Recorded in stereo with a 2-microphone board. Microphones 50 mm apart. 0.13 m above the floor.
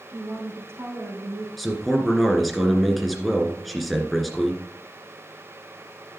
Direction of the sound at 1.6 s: Centre (ahead or behind).